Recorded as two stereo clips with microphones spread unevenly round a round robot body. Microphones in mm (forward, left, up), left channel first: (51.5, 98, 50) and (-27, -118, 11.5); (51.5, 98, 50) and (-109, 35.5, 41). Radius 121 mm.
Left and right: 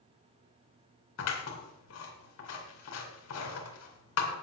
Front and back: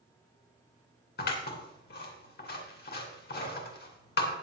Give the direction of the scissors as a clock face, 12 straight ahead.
11 o'clock.